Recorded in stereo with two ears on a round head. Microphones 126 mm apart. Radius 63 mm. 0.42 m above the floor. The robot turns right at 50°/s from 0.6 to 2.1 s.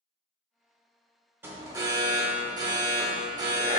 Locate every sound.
1.4 s an alarm: 150° right, 0.7 m; by 3.8 s 115° right, 0.7 m